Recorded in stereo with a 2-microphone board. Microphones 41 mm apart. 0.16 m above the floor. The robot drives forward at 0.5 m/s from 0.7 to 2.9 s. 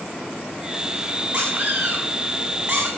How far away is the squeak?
About 6.5 m.